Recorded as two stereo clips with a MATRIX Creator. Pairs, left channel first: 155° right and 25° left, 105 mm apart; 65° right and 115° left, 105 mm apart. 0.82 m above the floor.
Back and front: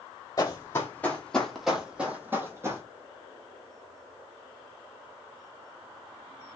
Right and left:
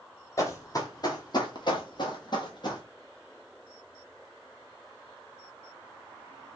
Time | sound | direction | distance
0.4 | running footsteps | 115° right | 1.1 m